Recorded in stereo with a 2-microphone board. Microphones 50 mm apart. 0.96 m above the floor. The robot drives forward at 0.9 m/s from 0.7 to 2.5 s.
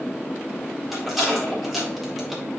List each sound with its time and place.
0.9 s a rattle: centre (ahead or behind), 3.5 m; by 2.4 s 5° right (ahead or behind), 2.5 m